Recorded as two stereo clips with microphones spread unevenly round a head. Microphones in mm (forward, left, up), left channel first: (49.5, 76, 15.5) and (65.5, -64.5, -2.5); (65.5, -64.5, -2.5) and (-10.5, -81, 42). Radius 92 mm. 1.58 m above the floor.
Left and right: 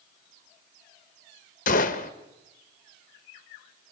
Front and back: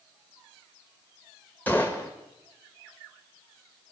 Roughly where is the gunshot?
Left.